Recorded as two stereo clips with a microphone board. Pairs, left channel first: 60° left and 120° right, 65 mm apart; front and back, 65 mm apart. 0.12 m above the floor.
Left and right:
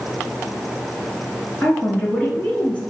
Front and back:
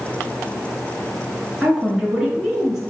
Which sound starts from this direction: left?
A woman speaking, at 1.6 s.